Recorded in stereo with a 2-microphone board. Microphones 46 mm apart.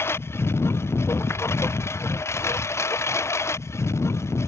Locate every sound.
0.0 s a lawn mower: 65° left (ahead or behind); by 4.5 s 85° left